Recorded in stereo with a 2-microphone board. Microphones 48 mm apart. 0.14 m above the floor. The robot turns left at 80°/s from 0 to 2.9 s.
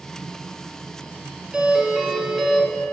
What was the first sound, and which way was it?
A doorbell, 20° right (ahead or behind).